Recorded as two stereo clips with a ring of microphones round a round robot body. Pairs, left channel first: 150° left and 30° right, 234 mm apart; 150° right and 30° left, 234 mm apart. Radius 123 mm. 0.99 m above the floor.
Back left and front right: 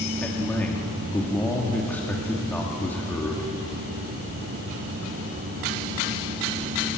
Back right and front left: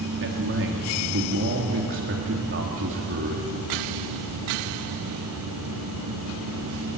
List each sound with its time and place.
0.2 s a man speaking: 65° left, 2 m